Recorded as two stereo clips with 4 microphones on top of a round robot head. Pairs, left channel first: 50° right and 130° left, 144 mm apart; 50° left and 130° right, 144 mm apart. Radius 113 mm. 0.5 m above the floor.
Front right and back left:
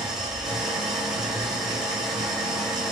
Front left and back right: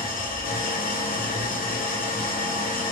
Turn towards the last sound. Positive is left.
turn(degrees=40)